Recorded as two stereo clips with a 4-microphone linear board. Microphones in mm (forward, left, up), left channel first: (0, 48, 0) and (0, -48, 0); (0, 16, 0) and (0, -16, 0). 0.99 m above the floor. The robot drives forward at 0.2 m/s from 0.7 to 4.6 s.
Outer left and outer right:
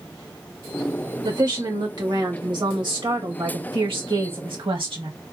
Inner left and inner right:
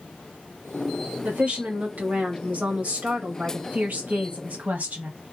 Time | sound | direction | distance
1.2 | a woman speaking | 45° right (ahead or behind) | 1.7 m